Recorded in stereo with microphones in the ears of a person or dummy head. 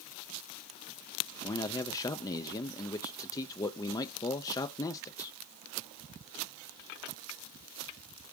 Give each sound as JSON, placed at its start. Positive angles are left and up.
{"t": 1.4, "sound": "a man speaking", "side_deg": 20, "distance_m": 0.6}